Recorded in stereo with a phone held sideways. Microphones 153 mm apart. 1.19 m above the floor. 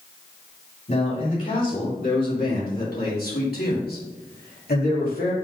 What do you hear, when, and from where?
0.9 s a man speaking: 55° left (ahead or behind), 3 m; by 5.3 s 75° left (ahead or behind), 2.5 m